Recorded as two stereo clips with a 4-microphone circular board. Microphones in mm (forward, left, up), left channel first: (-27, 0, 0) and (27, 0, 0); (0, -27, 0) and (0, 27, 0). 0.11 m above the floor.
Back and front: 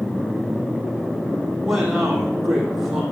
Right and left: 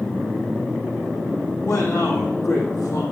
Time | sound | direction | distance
1.6 | a man speaking | 80° right | 3.5 m